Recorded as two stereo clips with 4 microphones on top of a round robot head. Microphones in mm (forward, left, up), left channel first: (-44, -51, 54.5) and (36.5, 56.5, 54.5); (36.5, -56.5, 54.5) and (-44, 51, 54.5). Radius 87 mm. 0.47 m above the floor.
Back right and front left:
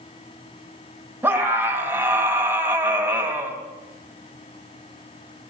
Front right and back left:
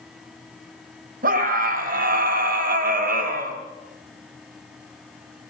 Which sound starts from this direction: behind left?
A scream, at 1.2 s.